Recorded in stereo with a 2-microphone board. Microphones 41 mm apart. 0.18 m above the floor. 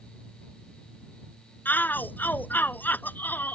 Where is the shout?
55° left (ahead or behind).